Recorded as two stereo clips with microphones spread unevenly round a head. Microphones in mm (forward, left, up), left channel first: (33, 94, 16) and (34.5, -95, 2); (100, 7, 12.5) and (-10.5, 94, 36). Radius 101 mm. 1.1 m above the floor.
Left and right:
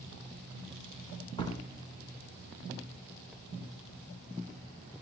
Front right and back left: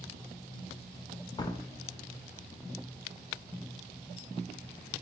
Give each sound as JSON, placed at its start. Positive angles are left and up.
{"t": 1.4, "sound": "a door slam", "azimuth_deg": 25, "distance_m": 3.0}